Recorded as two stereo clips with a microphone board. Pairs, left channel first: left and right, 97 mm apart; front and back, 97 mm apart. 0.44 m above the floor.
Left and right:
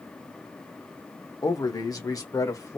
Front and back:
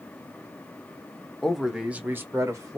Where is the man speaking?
85° left, 0.8 m; by 2.8 s 135° left, 1.2 m.